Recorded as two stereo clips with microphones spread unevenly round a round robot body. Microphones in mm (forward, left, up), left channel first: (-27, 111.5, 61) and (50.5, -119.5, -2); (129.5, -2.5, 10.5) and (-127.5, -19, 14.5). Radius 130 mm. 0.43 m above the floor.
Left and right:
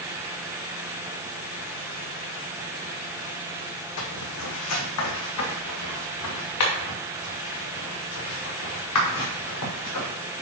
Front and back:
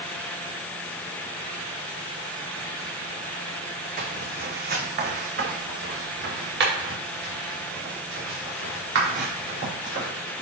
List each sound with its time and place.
4.0 s footsteps: 125° left, 1.2 m; by 10.1 s 135° left, 4.5 m